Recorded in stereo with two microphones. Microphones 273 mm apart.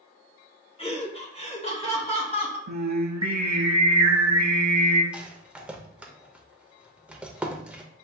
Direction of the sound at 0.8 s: 20° left (ahead or behind).